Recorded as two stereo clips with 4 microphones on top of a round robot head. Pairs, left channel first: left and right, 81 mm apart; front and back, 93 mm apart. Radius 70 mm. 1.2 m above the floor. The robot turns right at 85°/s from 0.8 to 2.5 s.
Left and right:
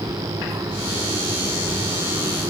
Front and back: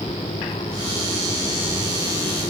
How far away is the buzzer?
No buzzer in this recording.